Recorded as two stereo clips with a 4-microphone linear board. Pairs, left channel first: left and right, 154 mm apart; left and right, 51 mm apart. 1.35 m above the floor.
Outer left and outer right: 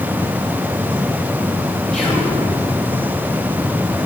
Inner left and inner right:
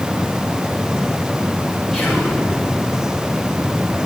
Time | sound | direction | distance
1.9 | whispering | 5° left (ahead or behind) | 3 m